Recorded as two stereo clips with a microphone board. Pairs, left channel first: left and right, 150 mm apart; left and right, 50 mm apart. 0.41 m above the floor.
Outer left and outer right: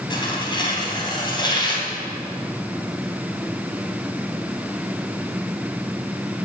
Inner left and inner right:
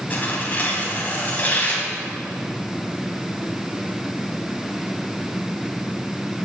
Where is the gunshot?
I don't hear a gunshot.